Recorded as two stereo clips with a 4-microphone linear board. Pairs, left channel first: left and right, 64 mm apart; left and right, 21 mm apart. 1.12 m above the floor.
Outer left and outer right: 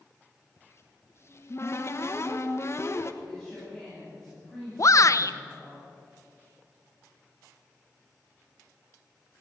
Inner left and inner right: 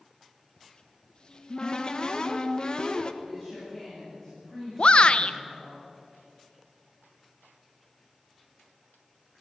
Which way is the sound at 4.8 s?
55° left (ahead or behind).